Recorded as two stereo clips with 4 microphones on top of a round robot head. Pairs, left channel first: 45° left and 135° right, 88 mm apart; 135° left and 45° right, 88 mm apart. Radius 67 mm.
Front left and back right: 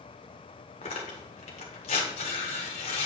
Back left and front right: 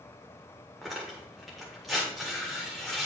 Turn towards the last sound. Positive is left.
turn(degrees=45)